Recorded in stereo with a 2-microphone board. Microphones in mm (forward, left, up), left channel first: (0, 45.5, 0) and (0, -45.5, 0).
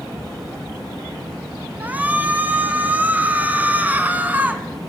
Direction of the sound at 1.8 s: 20° right (ahead or behind).